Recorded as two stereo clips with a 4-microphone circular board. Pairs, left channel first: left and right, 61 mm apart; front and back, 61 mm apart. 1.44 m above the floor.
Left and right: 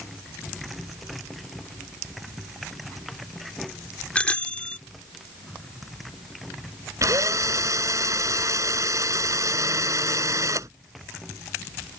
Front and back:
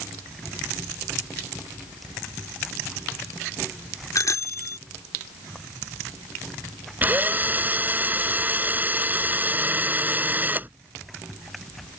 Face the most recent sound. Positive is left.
turn(degrees=-120)